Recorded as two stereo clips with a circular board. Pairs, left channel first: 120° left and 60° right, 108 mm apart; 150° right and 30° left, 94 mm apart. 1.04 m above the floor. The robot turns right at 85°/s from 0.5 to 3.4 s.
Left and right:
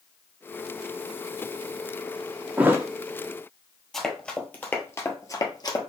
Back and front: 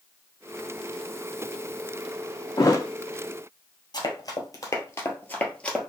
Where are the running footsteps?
155° right, 1.4 m; by 5.9 s 130° left, 1.3 m.